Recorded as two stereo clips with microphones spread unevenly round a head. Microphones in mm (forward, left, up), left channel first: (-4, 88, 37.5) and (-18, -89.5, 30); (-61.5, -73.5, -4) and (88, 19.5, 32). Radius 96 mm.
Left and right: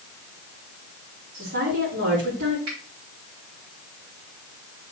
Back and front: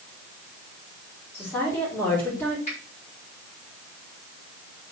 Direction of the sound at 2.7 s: 95° right.